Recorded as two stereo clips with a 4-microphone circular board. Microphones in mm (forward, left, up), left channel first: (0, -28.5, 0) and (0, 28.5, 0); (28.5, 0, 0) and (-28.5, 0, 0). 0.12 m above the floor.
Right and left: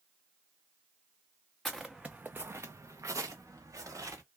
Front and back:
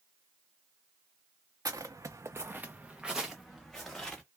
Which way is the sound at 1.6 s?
175° right.